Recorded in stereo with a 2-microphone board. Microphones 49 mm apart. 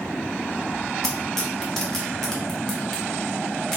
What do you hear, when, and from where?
1.0 s tearing paper: 10° left (ahead or behind), 1.3 m